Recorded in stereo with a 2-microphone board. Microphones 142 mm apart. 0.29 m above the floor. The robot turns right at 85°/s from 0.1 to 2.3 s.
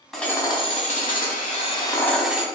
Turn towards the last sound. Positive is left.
turn(degrees=-175)